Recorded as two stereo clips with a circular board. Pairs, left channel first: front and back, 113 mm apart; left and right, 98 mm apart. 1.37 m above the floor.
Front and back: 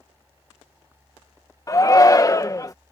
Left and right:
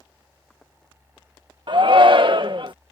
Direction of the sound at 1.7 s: 60° right.